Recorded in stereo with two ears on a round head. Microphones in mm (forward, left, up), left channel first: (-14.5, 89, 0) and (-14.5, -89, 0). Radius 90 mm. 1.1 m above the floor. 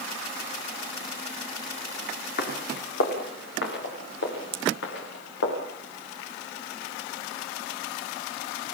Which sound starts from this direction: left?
Footsteps, at 2.4 s.